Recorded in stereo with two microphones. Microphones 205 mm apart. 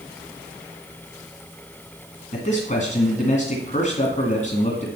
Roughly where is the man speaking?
Left.